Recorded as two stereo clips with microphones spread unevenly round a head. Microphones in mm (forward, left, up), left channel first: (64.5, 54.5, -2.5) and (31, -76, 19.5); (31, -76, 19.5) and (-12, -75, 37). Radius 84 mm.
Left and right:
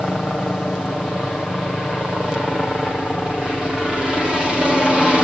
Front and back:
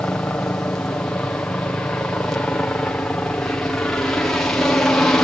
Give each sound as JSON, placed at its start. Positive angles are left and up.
{"t": 0.0, "sound": "a helicopter", "azimuth_deg": -5}